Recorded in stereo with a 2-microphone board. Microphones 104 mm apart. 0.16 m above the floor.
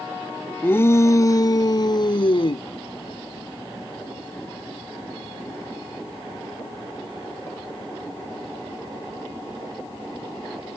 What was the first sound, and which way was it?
A shout, 20° left (ahead or behind).